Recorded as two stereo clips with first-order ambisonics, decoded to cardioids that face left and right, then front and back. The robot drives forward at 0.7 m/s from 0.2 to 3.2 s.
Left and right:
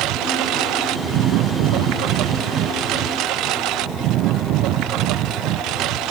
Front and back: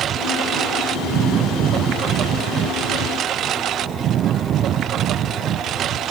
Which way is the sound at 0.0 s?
125° right.